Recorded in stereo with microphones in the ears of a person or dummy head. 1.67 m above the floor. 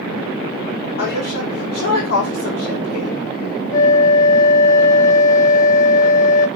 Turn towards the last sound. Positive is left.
turn(degrees=15)  # may be behind; listen again after turning